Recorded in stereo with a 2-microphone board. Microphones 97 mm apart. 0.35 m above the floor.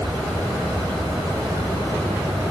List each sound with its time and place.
Only background noise.